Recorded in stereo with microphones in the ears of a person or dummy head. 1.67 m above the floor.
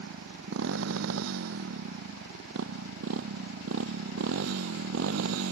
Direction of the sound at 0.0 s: 75° right (ahead or behind).